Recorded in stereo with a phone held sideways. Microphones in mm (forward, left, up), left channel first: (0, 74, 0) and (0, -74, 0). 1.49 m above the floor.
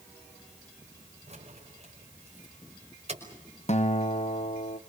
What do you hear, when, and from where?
1.3 s keys jangling: 50° right (ahead or behind), 5.5 m
3.7 s a guitar: 50° left (ahead or behind), 1.2 m